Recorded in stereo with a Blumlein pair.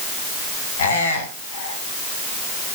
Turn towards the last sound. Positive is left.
turn(degrees=65)